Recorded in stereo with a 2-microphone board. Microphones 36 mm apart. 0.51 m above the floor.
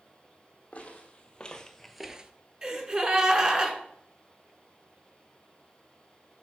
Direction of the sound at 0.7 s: 40° left (ahead or behind).